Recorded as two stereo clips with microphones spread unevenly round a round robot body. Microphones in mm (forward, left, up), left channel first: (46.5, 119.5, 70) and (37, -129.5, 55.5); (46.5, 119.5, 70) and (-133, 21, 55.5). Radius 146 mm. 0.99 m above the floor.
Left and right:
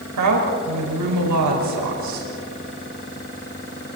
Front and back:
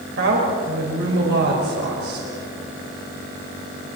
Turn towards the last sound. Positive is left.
turn(degrees=-105)